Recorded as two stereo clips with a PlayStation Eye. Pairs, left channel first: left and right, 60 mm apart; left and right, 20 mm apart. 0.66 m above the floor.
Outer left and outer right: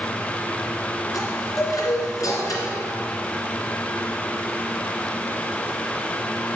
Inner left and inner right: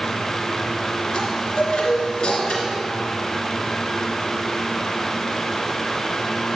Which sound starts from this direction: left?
A chime, at 1.1 s.